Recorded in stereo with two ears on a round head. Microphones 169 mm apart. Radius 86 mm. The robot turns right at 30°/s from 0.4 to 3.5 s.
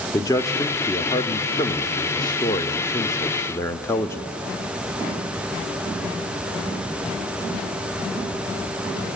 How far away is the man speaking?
About 0.7 m.